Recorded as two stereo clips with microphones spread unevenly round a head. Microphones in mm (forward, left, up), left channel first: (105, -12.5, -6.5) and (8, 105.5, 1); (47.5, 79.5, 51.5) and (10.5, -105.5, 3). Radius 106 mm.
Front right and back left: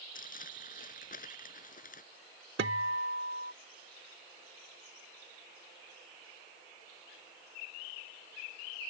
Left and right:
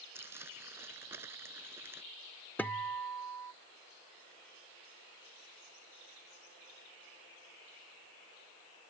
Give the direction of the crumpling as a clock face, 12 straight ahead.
1 o'clock.